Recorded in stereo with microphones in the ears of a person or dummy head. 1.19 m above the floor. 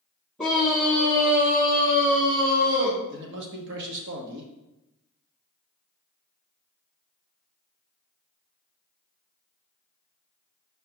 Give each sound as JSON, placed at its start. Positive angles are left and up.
{"t": 0.4, "sound": "a scream", "side_deg": 0, "distance_m": 1.4}
{"t": 3.1, "sound": "a man speaking", "side_deg": -60, "distance_m": 1.4}